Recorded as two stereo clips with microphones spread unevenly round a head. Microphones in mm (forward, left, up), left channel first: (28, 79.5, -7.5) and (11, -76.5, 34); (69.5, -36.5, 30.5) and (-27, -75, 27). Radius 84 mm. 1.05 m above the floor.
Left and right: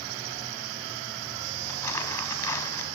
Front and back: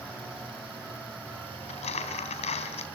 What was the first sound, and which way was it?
Crumpling, 10° left.